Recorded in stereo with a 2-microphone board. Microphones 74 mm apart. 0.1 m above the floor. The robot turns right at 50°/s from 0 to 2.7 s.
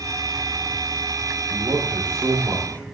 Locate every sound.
1.5 s a man speaking: 85° right, 4.5 m; by 3.0 s 25° right, 4.5 m